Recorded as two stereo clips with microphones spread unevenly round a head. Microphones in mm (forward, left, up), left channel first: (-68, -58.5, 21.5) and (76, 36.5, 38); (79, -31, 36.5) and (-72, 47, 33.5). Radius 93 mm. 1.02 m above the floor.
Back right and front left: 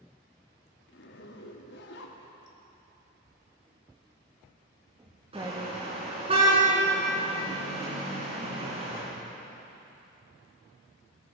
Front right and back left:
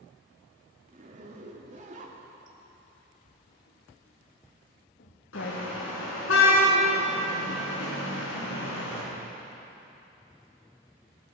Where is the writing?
35° right, 2.0 m.